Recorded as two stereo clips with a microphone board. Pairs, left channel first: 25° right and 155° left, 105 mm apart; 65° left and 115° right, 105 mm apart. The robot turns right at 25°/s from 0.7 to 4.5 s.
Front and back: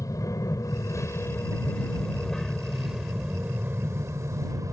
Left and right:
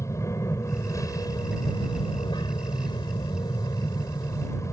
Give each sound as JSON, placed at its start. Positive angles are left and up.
{"t": 0.0, "sound": "an aircraft", "azimuth_deg": 20}